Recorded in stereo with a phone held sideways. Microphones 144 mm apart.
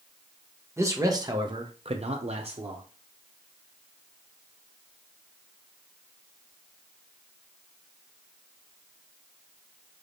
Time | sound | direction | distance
0.8 | a man speaking | 20° right (ahead or behind) | 0.9 m